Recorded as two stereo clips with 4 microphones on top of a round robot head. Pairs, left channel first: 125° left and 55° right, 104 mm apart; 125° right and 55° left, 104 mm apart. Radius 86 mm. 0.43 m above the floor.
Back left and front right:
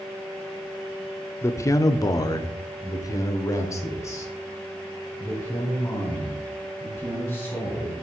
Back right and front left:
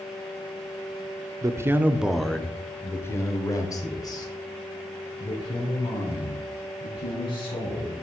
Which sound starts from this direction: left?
A man speaking, at 1.4 s.